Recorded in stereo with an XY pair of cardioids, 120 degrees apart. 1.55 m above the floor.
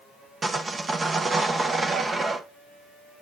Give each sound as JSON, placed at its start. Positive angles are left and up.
{"t": 0.4, "sound": "sawing", "azimuth_deg": -25, "distance_m": 1.4}